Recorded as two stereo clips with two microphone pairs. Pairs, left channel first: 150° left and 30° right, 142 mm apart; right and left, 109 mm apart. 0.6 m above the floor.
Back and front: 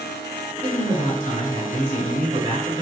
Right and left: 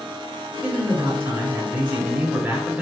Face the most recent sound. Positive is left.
turn(degrees=10)